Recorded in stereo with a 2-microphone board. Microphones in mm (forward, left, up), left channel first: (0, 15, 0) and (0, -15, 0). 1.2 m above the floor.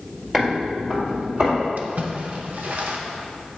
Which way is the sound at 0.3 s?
10° right (ahead or behind).